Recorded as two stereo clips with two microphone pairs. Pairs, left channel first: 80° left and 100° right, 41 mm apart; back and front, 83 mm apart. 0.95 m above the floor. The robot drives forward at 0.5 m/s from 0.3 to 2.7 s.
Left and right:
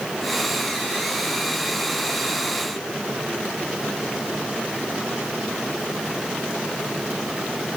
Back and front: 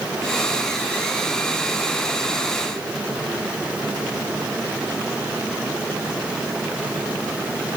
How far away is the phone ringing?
I don't hear a phone ringing.